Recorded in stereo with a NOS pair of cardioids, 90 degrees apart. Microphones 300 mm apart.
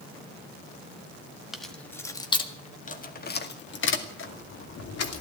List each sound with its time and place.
1.5 s keys jangling: straight ahead, 1.8 m; by 5.2 s 55° left, 3 m